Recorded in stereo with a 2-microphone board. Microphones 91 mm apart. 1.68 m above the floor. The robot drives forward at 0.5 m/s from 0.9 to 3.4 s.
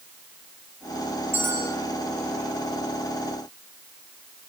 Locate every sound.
1.3 s a bell: 25° right (ahead or behind), 6.5 m